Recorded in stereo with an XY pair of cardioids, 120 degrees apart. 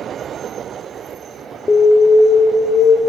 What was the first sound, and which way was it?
An alarm, 25° left.